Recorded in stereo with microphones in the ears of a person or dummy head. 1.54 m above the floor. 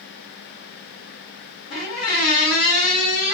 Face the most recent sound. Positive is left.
turn(degrees=65)  # may be behind; listen again after turning